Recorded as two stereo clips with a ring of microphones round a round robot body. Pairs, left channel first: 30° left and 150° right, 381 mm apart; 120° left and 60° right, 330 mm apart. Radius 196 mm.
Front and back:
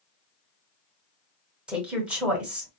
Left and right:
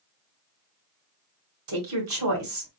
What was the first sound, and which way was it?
A woman speaking, 65° right.